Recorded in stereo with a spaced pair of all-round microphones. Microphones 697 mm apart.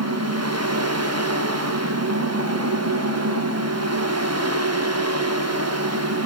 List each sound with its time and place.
0.0 s a fan: 20° right (ahead or behind), 1.7 m